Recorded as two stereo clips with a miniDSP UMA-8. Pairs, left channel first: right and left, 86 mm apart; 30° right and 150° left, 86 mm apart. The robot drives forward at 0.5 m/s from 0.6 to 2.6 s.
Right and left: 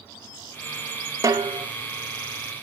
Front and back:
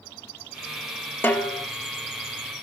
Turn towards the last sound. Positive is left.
turn(degrees=70)